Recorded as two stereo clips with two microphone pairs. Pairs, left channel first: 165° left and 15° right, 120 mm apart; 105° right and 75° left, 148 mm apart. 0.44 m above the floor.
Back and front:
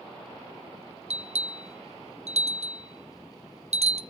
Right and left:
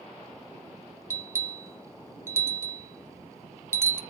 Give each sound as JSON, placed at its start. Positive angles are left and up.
{"t": 1.1, "sound": "a bell", "azimuth_deg": 5, "distance_m": 0.6}